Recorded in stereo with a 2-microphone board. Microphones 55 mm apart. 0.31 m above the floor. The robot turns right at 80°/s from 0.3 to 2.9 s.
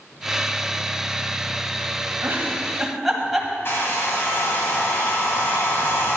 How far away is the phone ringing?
I don't hear a phone ringing.